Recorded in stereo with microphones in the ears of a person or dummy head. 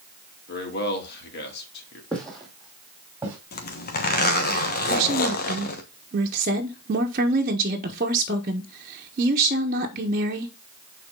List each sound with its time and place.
0.5 s a man speaking: 60° left (ahead or behind), 3 m
2.1 s footsteps: 5° left (ahead or behind), 3 m; by 3.4 s 15° right (ahead or behind), 4 m
3.5 s a zipper: 50° left (ahead or behind), 1.2 m
4.9 s a woman speaking: 45° right (ahead or behind), 1.3 m